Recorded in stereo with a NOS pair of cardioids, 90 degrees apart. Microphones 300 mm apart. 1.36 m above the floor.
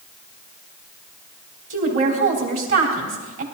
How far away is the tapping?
I don't hear tapping.